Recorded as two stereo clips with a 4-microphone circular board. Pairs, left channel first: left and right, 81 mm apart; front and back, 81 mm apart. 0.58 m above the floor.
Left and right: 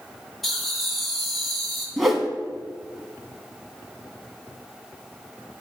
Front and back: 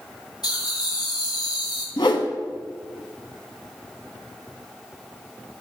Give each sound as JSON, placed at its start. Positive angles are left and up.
{"t": 0.4, "sound": "laughter", "azimuth_deg": 5, "distance_m": 2.5}
{"t": 2.0, "sound": "a whoosh", "azimuth_deg": 0, "distance_m": 0.9}